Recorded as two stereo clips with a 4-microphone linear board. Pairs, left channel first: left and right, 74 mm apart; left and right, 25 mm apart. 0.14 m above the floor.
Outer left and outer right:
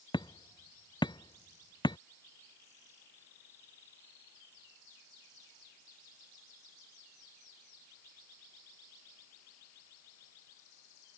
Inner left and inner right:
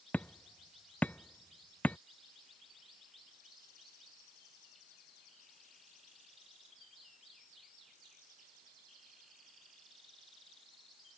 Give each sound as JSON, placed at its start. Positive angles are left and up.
{"t": 0.1, "sound": "hammering", "side_deg": 85}